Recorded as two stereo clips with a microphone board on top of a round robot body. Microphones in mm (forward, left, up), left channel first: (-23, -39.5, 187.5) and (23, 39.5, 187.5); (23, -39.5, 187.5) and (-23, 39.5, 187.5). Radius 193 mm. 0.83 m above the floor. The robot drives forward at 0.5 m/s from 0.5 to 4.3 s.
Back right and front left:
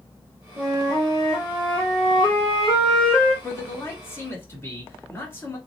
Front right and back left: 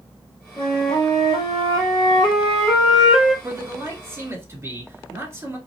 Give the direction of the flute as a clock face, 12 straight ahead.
1 o'clock.